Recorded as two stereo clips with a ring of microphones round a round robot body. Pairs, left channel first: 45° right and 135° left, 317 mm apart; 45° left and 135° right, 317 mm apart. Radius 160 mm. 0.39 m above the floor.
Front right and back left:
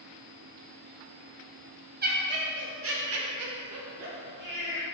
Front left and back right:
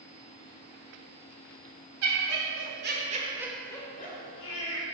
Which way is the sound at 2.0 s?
165° right.